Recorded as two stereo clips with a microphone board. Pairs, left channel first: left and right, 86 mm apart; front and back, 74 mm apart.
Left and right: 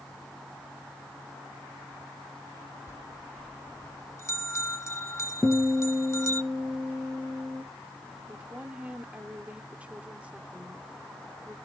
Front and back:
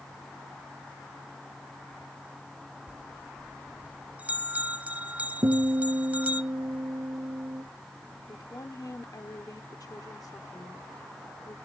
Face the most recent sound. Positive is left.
turn(degrees=-20)